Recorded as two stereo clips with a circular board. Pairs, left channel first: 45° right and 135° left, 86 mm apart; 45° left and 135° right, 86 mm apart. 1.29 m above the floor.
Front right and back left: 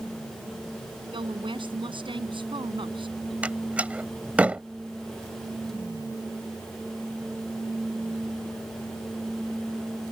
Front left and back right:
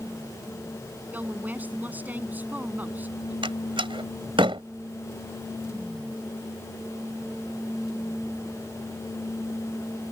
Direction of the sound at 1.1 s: 155° left.